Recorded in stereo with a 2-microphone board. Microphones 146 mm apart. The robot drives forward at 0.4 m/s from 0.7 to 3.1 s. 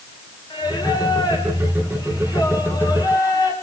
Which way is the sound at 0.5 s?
30° left (ahead or behind).